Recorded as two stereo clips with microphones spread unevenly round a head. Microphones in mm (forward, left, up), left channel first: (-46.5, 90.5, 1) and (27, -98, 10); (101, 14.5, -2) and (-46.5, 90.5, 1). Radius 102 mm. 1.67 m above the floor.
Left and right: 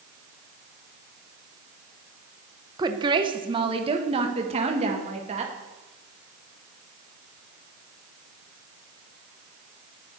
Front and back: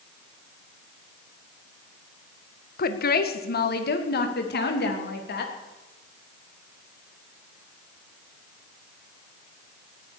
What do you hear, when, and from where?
2.8 s a woman speaking: 5° left, 1.4 m; by 5.5 s 10° right, 3 m